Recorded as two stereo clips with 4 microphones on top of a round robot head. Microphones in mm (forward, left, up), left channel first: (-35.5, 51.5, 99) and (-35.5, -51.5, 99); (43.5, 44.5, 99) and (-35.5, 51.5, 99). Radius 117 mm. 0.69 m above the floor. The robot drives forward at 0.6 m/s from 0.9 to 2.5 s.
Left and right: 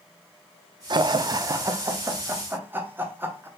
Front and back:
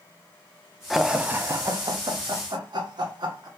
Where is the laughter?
95° right, 0.6 m; by 3.5 s 160° right, 1.2 m.